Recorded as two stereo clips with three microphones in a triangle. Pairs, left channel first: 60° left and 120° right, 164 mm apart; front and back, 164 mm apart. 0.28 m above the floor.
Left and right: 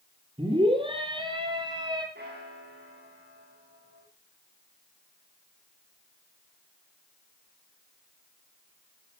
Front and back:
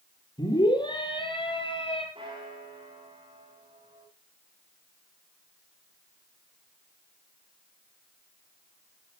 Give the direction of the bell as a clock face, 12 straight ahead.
4 o'clock.